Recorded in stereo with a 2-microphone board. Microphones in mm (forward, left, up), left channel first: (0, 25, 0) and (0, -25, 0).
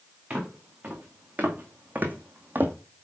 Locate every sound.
0.3 s footsteps: 25° right (ahead or behind), 2.5 m; by 2.8 s 40° right (ahead or behind), 1.0 m